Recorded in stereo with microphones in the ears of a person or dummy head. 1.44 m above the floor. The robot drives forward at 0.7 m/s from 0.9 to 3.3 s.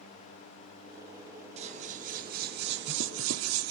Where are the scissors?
35° right (ahead or behind), 1.8 m; by 3.7 s 75° right (ahead or behind), 1.0 m.